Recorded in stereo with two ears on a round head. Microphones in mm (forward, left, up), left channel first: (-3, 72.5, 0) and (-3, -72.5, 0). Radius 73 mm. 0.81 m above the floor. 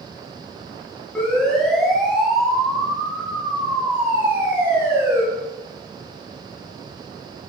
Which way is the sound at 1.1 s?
5° left (ahead or behind).